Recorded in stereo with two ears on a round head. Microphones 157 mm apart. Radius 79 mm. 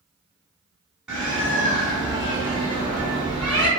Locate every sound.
1.1 s a bird: 5° right (ahead or behind), 1.0 m